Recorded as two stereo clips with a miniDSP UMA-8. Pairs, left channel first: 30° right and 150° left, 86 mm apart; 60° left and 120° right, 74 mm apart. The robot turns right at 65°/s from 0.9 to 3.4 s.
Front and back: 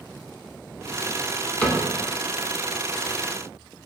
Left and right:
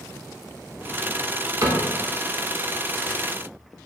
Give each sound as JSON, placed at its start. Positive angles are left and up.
{"t": 1.6, "sound": "a cupboard door", "azimuth_deg": -100, "distance_m": 0.5}